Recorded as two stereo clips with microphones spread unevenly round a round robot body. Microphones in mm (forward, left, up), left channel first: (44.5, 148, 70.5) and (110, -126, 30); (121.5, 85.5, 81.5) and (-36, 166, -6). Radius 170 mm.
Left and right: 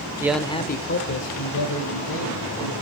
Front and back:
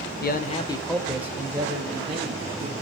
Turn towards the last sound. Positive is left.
turn(degrees=110)